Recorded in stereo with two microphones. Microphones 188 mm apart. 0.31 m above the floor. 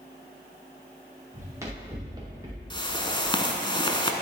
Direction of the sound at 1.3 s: 15° right (ahead or behind).